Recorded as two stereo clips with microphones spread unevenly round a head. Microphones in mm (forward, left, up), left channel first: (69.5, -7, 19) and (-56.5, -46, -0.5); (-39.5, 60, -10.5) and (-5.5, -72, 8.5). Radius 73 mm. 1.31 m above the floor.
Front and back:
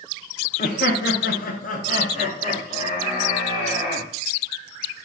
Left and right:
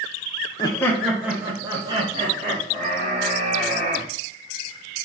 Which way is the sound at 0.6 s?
50° left.